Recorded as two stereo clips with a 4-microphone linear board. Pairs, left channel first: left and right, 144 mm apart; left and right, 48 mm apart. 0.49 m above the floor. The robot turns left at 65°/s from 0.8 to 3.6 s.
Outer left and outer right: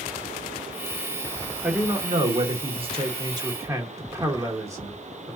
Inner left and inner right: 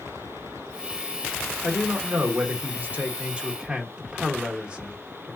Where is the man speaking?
20° right, 1.2 m; by 5.4 s 145° right, 1.2 m.